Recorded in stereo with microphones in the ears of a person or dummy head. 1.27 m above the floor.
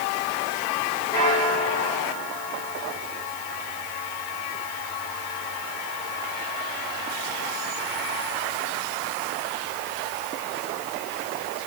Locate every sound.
1.1 s a bell: 20° left (ahead or behind), 6 m